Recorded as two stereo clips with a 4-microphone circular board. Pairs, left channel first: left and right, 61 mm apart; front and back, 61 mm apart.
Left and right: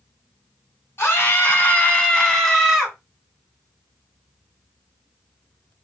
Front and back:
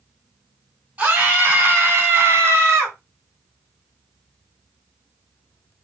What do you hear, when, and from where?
1.0 s a scream: 120° left, 1.5 m; by 3.0 s 175° right, 1.4 m